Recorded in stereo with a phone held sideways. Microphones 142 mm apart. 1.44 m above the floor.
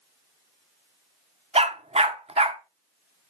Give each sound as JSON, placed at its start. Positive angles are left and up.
{"t": 1.6, "sound": "a dog barking", "side_deg": -50, "distance_m": 1.3}